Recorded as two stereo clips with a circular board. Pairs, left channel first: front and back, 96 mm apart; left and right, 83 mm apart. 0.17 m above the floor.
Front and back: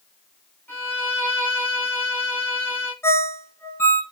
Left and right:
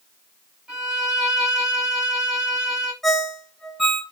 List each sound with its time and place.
0.7 s a violin: 30° right, 1.4 m
3.0 s a ringtone: 10° left, 0.9 m